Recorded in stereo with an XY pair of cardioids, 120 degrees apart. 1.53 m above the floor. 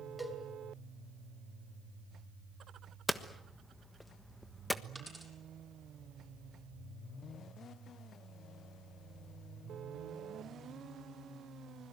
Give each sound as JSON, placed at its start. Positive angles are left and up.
{"t": 0.2, "sound": "a cowbell", "azimuth_deg": 5, "distance_m": 5.0}
{"t": 3.1, "sound": "hammering", "azimuth_deg": 10, "distance_m": 1.4}
{"t": 5.0, "sound": "a dropped coin", "azimuth_deg": -10, "distance_m": 7.0}